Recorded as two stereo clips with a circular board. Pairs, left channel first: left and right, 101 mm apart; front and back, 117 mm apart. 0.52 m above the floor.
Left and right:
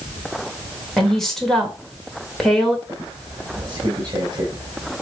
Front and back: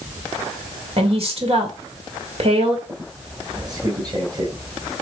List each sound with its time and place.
1.0 s a woman speaking: 175° left, 2 m
2.9 s a squeak: 130° right, 2 m